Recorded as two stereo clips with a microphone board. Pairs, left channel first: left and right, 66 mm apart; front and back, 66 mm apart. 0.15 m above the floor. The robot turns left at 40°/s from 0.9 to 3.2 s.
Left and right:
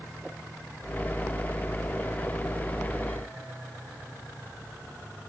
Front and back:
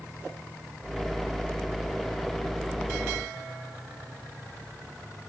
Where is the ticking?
I don't hear ticking.